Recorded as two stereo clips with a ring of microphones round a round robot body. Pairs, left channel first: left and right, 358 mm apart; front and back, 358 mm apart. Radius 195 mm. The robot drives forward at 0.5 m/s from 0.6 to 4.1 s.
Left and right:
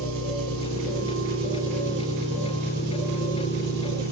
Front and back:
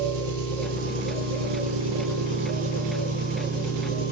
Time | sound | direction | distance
0.0 | an engine running | 150° right | 6 m